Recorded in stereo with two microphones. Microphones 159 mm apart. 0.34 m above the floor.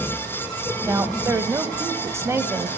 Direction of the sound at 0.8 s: 15° right (ahead or behind).